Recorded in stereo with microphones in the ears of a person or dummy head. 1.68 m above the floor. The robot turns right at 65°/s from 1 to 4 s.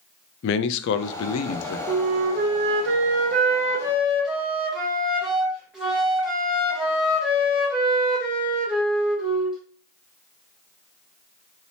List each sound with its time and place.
0.4 s a man speaking: 65° left, 0.5 m; by 1.8 s 115° left, 0.5 m
1.9 s a flute: 140° right, 1.4 m; by 9.6 s 5° right, 1.4 m